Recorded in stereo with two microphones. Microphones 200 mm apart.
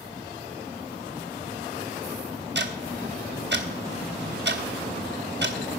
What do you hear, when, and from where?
2.5 s ticking: 60° right (ahead or behind), 1.1 m